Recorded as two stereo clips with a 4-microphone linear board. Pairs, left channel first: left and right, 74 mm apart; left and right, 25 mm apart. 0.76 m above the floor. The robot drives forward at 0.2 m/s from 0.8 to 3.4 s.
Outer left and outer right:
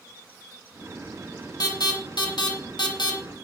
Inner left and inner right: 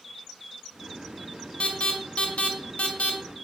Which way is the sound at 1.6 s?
65° left (ahead or behind).